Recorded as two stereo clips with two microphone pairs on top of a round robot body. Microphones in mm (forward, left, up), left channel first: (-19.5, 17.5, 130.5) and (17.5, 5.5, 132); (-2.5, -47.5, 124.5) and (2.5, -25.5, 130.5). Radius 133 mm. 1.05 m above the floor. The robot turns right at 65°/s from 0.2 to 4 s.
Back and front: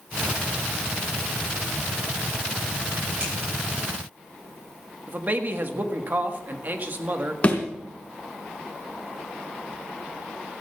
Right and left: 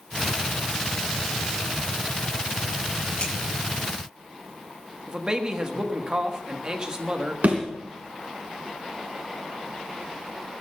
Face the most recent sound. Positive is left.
turn(degrees=100)